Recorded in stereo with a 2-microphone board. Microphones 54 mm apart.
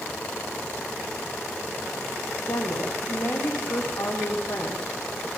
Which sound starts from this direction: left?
A woman speaking, at 2.5 s.